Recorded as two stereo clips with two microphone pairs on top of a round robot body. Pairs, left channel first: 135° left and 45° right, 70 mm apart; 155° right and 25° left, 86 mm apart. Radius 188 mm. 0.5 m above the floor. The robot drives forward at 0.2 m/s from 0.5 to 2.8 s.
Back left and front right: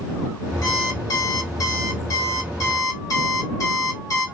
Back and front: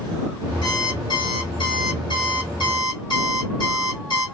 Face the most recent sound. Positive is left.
turn(degrees=170)